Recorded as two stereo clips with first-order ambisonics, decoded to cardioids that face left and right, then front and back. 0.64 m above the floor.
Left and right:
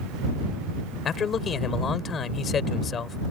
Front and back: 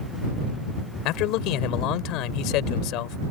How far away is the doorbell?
I don't hear a doorbell.